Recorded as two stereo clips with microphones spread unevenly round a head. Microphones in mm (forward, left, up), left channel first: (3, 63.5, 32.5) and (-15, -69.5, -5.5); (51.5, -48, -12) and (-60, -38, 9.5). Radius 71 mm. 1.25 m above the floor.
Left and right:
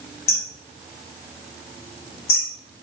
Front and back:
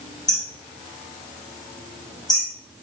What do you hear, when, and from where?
0.3 s hammering: 60° left, 4 m